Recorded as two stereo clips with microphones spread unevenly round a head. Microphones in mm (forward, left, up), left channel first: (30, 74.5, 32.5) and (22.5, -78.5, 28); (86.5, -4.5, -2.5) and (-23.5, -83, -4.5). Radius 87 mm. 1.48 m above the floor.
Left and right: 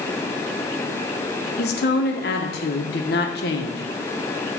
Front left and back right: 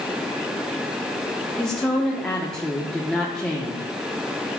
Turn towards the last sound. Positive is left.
turn(degrees=120)